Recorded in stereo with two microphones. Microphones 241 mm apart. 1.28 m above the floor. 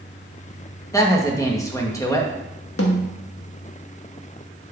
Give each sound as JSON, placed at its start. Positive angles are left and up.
{"t": 0.9, "sound": "a woman speaking", "side_deg": 15, "distance_m": 1.6}
{"t": 2.8, "sound": "a snare drum", "side_deg": 70, "distance_m": 1.4}